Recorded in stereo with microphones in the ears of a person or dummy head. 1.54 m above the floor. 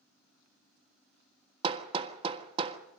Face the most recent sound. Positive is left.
turn(degrees=-35)  # may be behind; listen again after turning